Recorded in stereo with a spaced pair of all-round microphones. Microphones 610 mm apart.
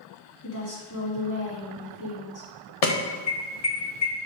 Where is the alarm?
70° left (ahead or behind), 1.2 m.